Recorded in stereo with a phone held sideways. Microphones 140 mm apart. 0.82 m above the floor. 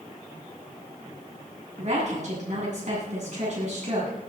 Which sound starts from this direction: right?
A woman speaking, at 1.8 s.